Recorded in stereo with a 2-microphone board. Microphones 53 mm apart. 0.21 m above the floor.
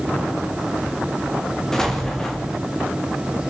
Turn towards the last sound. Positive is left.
turn(degrees=10)  # may be behind; listen again after turning